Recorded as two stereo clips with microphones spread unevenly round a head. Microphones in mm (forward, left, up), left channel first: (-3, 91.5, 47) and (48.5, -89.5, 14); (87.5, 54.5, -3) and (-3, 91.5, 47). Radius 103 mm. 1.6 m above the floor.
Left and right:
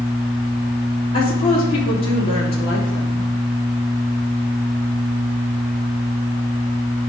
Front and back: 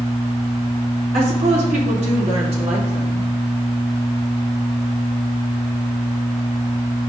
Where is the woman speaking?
170° left, 4 m.